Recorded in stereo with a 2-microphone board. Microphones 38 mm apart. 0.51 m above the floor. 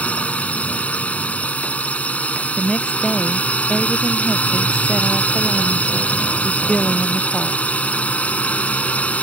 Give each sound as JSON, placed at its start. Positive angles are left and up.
{"t": 0.0, "sound": "a drone", "side_deg": 40}
{"t": 2.6, "sound": "a woman speaking", "side_deg": 20}